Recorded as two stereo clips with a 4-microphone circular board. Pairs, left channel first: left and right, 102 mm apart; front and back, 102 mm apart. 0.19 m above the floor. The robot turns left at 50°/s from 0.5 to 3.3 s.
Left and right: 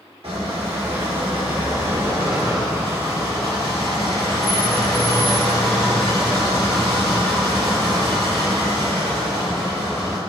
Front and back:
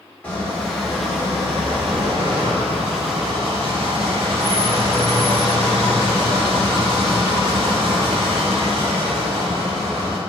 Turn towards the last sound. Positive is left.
turn(degrees=145)